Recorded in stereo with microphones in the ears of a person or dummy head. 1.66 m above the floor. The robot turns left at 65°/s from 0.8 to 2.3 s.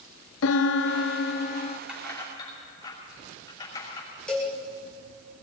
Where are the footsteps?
I don't hear footsteps.